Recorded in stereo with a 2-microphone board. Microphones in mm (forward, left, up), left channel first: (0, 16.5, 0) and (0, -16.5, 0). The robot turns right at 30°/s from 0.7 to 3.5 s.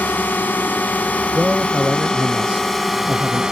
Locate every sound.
0.0 s a drone: 110° left; by 3.5 s 165° right
1.3 s a man speaking: 145° right; by 3.4 s 80° right